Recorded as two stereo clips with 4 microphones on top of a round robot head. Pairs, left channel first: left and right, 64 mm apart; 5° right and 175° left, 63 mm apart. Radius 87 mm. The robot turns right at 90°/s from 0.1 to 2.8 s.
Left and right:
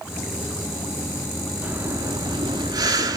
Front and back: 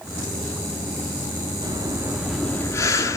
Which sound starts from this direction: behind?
Breathing, at 1.6 s.